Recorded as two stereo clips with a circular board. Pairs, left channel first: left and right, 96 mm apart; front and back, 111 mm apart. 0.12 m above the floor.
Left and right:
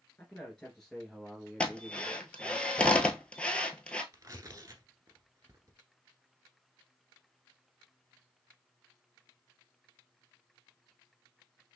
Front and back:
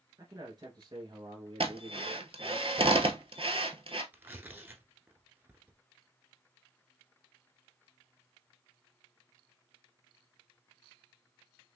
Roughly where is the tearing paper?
Behind right.